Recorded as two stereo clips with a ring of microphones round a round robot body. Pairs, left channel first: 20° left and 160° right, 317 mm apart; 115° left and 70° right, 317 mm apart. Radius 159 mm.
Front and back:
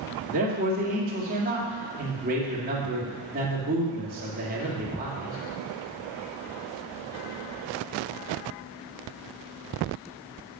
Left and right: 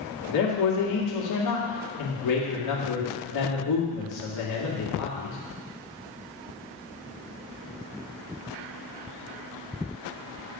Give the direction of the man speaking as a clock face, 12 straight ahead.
7 o'clock.